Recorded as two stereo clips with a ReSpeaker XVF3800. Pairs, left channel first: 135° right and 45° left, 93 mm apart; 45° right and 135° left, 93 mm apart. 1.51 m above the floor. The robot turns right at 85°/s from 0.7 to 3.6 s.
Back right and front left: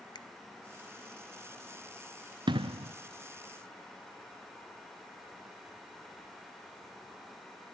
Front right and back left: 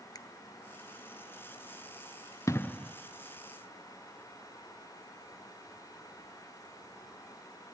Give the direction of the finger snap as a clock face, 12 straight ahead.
3 o'clock.